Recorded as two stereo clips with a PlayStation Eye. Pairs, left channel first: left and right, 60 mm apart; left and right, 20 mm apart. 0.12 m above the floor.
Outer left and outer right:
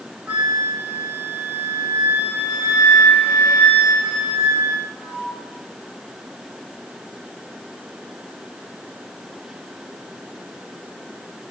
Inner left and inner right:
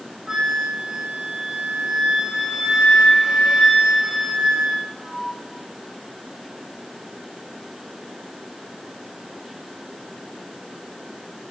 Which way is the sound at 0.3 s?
15° right (ahead or behind).